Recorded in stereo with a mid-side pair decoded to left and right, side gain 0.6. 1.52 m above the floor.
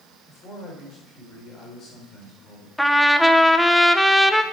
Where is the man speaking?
40° left, 6 m.